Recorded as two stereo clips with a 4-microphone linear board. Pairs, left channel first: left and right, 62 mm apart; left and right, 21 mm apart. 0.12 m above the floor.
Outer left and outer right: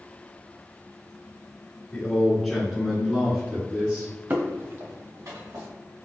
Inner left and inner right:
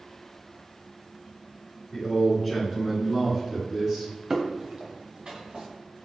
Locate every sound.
1.9 s a man speaking: 15° left (ahead or behind), 1.9 m; by 4.1 s 40° right (ahead or behind), 2.0 m
4.3 s footsteps: 35° right (ahead or behind), 0.8 m; by 5.7 s 75° right (ahead or behind), 1.8 m